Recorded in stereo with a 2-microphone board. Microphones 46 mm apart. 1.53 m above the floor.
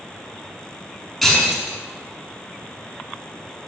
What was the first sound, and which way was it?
Breaking glass, centre (ahead or behind).